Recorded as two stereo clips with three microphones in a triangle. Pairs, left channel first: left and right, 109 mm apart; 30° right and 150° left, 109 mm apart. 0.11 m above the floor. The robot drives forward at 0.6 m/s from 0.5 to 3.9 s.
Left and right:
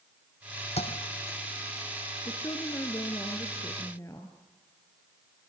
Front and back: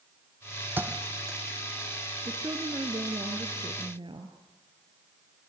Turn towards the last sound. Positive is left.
turn(degrees=145)